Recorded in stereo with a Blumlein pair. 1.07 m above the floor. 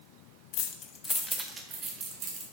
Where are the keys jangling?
45° left, 0.7 m; by 2.4 s 30° right, 1.8 m.